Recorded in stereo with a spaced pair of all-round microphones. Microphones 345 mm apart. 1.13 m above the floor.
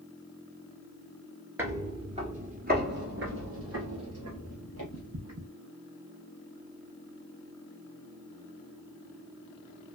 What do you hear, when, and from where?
1.6 s footsteps: 5° right (ahead or behind), 1.2 m; by 5.5 s 50° right (ahead or behind), 2 m